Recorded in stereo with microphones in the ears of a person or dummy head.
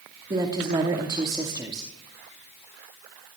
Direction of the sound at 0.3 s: 25° right (ahead or behind).